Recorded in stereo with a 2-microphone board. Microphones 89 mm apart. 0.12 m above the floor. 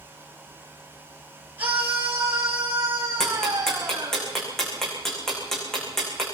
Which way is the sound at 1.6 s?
20° right (ahead or behind).